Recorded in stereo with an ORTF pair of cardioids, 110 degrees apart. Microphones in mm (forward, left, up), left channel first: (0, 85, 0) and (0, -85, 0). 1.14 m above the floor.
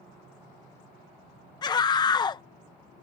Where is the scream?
25° left.